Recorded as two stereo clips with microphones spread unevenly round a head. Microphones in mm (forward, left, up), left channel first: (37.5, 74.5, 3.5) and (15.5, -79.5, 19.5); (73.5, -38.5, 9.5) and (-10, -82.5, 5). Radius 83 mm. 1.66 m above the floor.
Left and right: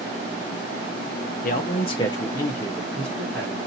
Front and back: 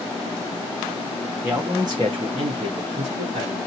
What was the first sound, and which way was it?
A man speaking, 125° left.